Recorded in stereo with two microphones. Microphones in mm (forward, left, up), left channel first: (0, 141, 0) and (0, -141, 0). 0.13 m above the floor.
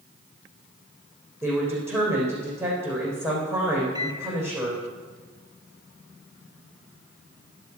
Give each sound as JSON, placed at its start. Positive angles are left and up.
{"t": 1.4, "sound": "a woman speaking", "side_deg": -10, "distance_m": 6.5}
{"t": 4.0, "sound": "a microwave", "side_deg": -15, "distance_m": 0.9}